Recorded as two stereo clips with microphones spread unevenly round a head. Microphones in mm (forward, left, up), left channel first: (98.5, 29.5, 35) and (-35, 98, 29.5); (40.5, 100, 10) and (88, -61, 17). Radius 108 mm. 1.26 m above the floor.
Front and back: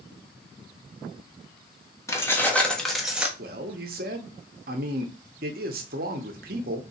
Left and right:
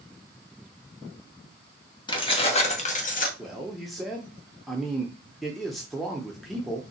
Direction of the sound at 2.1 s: 45° left.